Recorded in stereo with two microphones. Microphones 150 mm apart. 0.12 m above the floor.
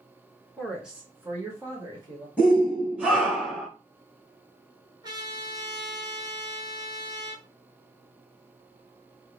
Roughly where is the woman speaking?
Centre.